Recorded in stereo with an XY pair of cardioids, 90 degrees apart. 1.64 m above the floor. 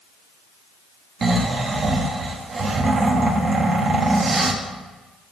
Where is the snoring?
45° right, 1.1 m.